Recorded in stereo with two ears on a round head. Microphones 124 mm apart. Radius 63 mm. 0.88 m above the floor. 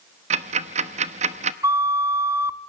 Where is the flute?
20° right (ahead or behind), 0.7 m.